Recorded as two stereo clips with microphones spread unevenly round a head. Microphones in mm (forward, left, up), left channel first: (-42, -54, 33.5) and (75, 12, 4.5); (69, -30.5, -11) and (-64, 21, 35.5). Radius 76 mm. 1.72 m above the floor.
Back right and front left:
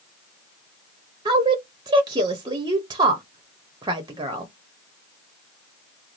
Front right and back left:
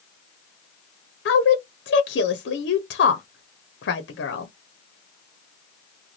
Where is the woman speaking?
35° right, 0.7 m.